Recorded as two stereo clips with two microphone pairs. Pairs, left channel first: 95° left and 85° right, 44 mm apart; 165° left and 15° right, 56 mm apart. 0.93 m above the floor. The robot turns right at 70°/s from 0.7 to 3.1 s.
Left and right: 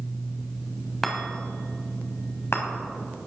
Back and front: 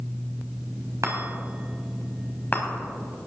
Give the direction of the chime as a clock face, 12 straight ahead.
12 o'clock.